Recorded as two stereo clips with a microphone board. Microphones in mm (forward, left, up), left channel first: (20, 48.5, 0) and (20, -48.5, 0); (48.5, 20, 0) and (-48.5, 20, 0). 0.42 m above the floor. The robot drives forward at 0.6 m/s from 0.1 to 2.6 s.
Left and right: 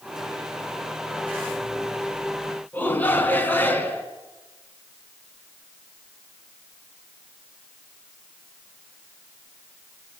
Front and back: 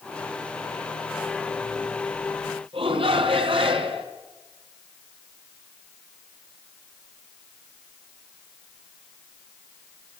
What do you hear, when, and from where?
2.7 s a shout: 160° left, 3.5 m